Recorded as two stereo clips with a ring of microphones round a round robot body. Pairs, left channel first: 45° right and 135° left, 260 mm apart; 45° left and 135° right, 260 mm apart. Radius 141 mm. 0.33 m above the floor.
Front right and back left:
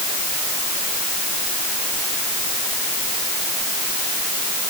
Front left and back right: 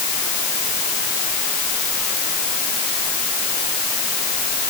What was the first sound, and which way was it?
Only background noise.